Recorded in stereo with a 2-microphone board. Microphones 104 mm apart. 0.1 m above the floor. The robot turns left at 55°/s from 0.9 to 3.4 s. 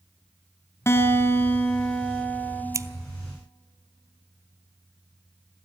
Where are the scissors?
30° right (ahead or behind), 0.5 m; by 2.9 s 35° right (ahead or behind), 0.5 m.